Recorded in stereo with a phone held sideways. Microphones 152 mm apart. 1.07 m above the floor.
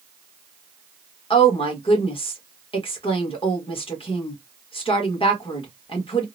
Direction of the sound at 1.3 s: 40° left (ahead or behind).